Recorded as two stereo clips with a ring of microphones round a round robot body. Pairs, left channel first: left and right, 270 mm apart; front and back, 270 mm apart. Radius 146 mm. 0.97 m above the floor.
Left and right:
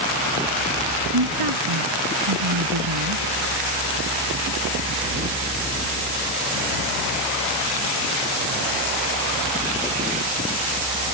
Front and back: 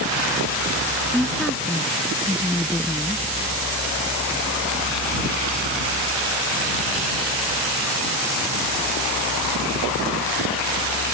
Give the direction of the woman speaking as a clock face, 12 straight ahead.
3 o'clock.